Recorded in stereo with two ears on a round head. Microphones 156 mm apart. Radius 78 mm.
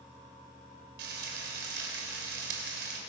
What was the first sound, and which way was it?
Frying, 65° right (ahead or behind).